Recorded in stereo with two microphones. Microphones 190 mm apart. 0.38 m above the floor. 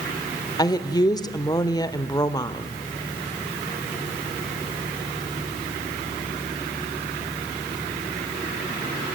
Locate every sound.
0.6 s a woman speaking: 20° left (ahead or behind), 1.1 m